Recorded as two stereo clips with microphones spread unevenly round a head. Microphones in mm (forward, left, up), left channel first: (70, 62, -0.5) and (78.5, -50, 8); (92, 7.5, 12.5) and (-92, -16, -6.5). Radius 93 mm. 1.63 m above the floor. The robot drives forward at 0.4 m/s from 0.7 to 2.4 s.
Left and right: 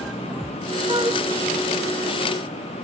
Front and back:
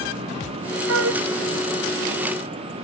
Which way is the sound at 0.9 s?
155° right.